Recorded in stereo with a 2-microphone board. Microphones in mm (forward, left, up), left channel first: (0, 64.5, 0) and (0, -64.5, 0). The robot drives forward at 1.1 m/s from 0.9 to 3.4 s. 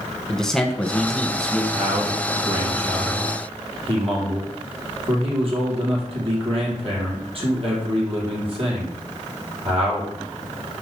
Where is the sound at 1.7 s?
65° right (ahead or behind), 3.5 m; by 10.1 s 45° right (ahead or behind), 4 m.